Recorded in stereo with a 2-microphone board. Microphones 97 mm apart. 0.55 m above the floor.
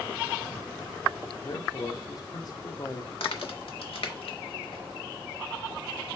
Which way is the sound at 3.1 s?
75° left (ahead or behind).